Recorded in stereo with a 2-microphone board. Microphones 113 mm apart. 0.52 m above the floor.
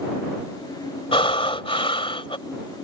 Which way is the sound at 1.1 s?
55° left (ahead or behind).